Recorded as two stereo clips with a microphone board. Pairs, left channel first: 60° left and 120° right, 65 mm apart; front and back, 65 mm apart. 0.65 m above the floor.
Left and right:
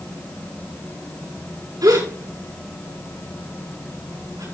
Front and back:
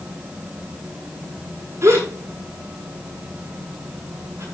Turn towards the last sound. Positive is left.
turn(degrees=-135)